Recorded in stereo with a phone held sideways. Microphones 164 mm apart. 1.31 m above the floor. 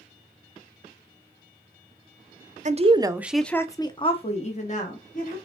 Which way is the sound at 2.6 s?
45° right (ahead or behind).